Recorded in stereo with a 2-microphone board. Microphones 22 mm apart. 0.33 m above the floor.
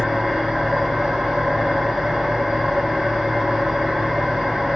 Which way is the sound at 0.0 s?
70° right (ahead or behind).